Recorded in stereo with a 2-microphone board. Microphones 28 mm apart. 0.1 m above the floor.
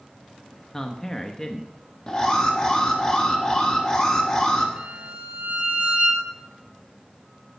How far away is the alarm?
About 2.5 m.